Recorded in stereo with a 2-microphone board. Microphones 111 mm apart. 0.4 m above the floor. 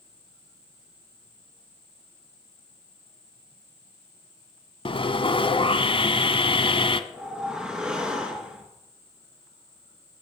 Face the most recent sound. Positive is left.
turn(degrees=-5)  # may be behind; listen again after turning